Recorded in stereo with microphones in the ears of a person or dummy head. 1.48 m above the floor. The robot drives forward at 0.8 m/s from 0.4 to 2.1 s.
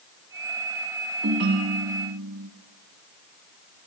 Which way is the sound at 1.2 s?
55° right (ahead or behind).